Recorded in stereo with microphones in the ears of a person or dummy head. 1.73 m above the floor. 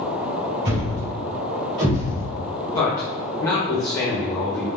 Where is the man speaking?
15° left (ahead or behind), 1.0 m.